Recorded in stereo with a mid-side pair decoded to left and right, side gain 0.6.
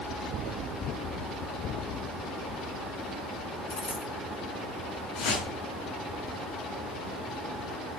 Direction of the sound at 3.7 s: 20° left.